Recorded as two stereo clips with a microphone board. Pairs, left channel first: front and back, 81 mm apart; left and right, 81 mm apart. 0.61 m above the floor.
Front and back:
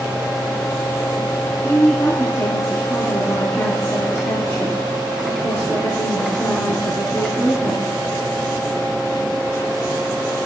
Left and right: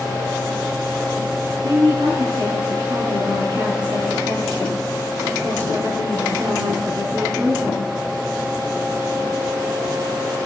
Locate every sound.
1.6 s a woman speaking: 60° right, 5.5 m